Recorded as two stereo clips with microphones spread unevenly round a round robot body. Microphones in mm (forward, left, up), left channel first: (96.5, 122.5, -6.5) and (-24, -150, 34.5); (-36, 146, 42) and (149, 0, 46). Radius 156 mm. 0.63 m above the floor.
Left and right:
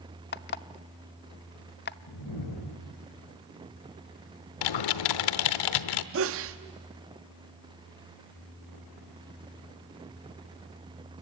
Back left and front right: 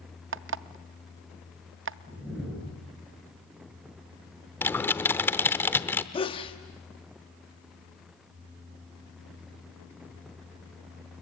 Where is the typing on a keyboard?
60° left, 0.9 m.